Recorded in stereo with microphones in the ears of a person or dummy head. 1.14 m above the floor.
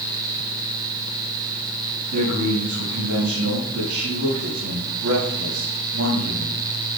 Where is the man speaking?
90° right, 7 m.